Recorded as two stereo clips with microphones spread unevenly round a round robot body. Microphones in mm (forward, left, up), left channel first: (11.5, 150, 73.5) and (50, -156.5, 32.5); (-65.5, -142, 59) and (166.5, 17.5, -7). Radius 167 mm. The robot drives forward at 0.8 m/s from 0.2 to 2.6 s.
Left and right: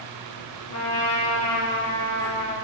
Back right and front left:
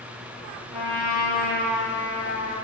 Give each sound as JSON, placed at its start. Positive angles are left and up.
{"t": 0.7, "sound": "a trumpet", "azimuth_deg": 120, "distance_m": 4.5}